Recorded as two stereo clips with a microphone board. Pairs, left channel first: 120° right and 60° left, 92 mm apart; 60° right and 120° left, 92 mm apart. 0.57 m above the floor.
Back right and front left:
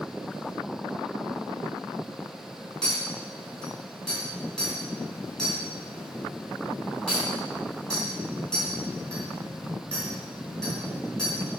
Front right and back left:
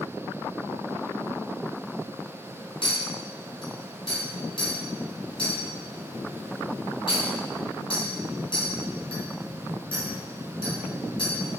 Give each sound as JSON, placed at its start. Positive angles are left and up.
{"t": 2.8, "sound": "a clink", "azimuth_deg": -40, "distance_m": 3.0}